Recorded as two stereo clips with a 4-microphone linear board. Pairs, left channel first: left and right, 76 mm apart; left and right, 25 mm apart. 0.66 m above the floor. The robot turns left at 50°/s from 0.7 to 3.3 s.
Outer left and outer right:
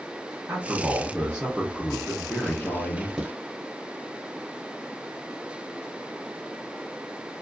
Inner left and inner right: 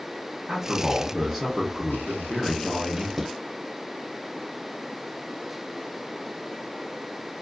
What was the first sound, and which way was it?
A man speaking, 135° right.